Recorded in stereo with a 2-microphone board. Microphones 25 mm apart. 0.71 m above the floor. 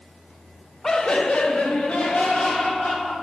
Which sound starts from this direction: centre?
Laughter, at 0.8 s.